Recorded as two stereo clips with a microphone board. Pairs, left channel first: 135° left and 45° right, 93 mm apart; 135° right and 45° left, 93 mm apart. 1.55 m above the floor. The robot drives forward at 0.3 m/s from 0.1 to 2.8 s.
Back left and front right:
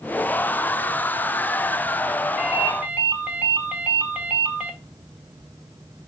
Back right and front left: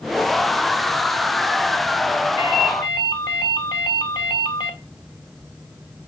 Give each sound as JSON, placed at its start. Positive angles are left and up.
{"t": 2.4, "sound": "a ringtone", "azimuth_deg": -115, "distance_m": 1.8}